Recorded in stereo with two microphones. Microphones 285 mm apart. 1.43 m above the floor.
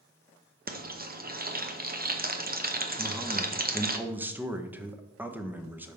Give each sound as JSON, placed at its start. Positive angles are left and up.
{"t": 0.7, "sound": "frying", "side_deg": -30, "distance_m": 0.7}
{"t": 3.0, "sound": "a man speaking", "side_deg": -5, "distance_m": 0.7}